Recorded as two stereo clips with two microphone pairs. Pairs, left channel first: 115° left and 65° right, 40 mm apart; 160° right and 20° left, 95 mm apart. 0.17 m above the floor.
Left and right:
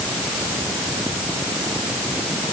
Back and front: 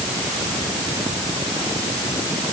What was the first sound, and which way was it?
Only background noise.